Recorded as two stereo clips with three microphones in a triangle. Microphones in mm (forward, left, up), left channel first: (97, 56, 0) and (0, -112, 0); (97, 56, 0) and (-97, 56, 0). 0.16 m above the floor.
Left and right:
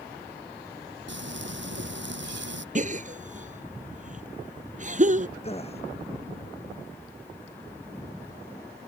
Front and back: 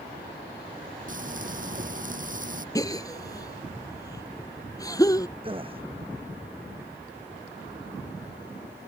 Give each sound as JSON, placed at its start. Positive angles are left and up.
{"t": 1.1, "sound": "frying", "azimuth_deg": -135}
{"t": 2.8, "sound": "a gasp", "azimuth_deg": -70}
{"t": 5.4, "sound": "a gasp", "azimuth_deg": 115}